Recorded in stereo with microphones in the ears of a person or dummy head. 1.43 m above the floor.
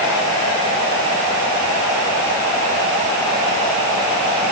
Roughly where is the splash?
No splash in this recording.